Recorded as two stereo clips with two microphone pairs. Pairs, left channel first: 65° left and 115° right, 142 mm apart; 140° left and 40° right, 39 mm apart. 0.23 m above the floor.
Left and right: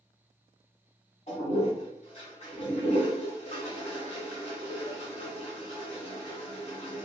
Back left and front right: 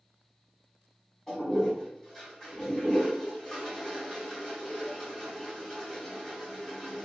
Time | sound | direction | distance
1.3 | a toilet flushing | 70° left | 1.3 m